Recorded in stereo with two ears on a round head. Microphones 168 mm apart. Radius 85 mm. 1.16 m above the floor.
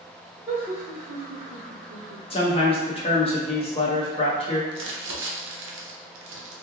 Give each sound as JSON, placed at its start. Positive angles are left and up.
{"t": 0.5, "sound": "laughter", "side_deg": -10, "distance_m": 1.1}
{"t": 2.3, "sound": "a man speaking", "side_deg": 30, "distance_m": 0.7}
{"t": 4.7, "sound": "crumpling", "side_deg": -75, "distance_m": 0.6}